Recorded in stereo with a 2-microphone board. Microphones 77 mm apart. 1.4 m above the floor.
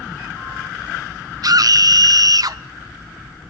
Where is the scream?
55° right (ahead or behind), 0.8 m.